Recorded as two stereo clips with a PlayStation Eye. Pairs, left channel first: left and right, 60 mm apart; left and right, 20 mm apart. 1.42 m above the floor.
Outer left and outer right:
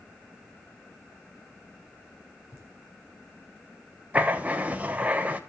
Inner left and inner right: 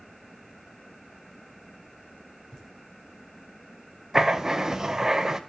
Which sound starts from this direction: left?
Laughter, at 2.5 s.